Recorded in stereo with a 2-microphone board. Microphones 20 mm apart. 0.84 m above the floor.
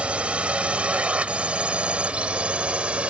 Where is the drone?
75° right (ahead or behind); by 3.1 s 70° right (ahead or behind).